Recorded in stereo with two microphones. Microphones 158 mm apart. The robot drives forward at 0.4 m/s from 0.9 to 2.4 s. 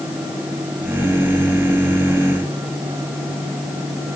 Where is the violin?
I don't hear a violin.